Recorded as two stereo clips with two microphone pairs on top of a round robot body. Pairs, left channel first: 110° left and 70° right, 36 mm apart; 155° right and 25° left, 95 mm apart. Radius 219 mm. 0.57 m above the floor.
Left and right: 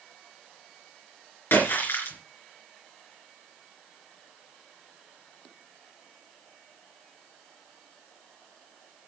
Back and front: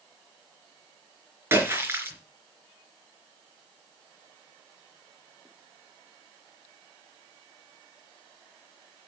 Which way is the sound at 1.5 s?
95° left.